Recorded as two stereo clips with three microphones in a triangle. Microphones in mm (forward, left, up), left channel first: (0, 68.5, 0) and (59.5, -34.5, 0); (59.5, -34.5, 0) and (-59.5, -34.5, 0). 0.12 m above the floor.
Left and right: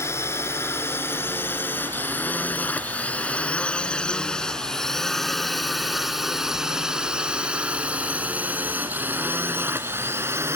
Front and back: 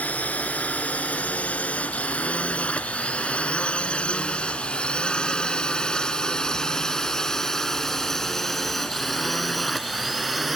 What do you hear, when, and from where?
0.0 s a drone: 70° left; by 10.6 s 95° right